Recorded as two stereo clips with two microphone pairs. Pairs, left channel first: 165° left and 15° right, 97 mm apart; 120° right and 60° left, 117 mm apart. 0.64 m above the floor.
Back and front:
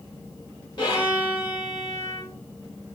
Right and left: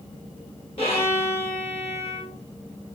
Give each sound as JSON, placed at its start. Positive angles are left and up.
{"t": 0.8, "sound": "a violin", "azimuth_deg": -150, "distance_m": 2.5}